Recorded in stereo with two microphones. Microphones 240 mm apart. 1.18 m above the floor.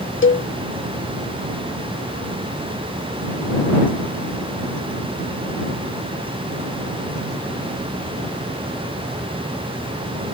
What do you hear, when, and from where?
0.2 s a cowbell: 55° left (ahead or behind)